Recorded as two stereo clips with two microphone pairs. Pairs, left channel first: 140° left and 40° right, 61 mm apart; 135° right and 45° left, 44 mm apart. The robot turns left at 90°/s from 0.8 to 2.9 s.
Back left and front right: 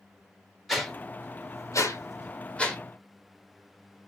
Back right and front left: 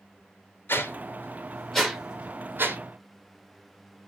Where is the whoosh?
125° right, 0.7 m; by 2.8 s 50° left, 0.7 m.